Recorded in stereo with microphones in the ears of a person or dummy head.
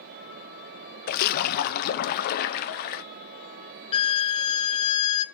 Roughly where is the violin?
Left.